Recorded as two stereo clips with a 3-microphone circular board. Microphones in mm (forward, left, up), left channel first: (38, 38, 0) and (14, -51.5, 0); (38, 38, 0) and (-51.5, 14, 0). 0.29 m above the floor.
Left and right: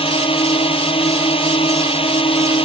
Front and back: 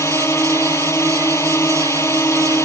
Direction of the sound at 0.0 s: 75° left.